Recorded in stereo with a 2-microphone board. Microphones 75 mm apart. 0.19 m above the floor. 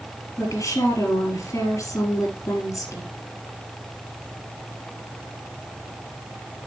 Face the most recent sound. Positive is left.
turn(degrees=45)  # may be behind; listen again after turning